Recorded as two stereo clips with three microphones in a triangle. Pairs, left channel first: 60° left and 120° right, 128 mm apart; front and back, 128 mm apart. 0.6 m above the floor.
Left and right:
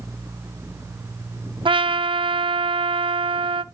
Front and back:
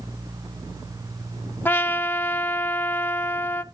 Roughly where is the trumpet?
Right.